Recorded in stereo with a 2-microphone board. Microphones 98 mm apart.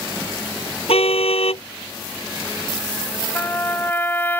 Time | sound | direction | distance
0.9 | a car horn | 80° left | ?
3.4 | a trumpet | 20° left (ahead or behind) | ?